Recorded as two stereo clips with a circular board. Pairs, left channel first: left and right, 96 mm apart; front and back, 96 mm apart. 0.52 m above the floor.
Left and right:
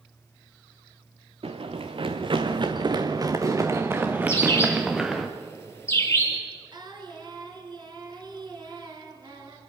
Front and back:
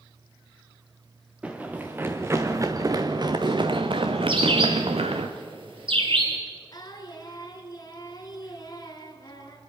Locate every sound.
1.4 s running footsteps: 105° right, 2 m; by 5.3 s 175° right, 2.5 m
4.3 s a bird: 155° left, 3 m
6.7 s singing: 45° right, 2.5 m